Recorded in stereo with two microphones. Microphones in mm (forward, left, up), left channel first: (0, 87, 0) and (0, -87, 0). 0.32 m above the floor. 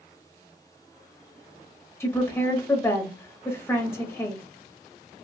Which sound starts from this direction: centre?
A woman speaking, at 2.0 s.